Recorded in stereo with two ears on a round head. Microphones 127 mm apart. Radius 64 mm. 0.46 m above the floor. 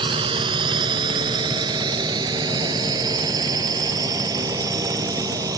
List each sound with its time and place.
0.0 s a drone: 35° right (ahead or behind); by 5.6 s 25° right (ahead or behind)